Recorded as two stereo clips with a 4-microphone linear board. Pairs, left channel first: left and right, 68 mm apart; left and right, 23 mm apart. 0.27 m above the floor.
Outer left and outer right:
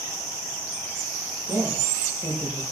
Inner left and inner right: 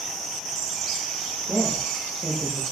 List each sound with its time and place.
1.2 s a woman speaking: 75° right (ahead or behind), 8 m; by 2.6 s 70° right (ahead or behind), 7 m